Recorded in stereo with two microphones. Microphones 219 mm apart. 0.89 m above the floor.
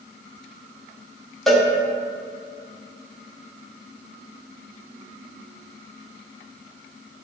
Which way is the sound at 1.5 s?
Centre (ahead or behind).